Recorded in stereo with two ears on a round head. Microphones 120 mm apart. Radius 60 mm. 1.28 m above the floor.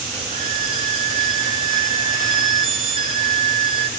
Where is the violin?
45° right (ahead or behind), 3.5 m.